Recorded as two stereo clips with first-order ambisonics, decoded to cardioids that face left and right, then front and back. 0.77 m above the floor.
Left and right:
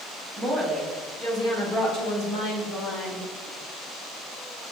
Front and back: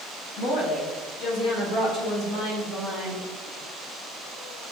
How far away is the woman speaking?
About 1.1 m.